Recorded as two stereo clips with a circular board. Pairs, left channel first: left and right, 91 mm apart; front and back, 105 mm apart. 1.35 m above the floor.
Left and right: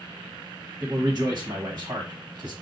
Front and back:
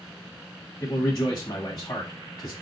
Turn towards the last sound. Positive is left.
turn(degrees=-45)